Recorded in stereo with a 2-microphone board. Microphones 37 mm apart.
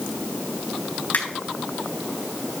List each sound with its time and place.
1.1 s a finger snap: 50° left (ahead or behind), 3.5 m